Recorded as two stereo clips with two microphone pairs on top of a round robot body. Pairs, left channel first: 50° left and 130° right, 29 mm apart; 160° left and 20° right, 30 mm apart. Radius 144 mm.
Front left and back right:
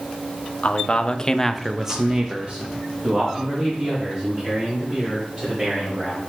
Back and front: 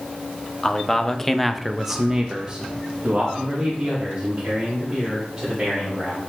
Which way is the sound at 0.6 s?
90° left.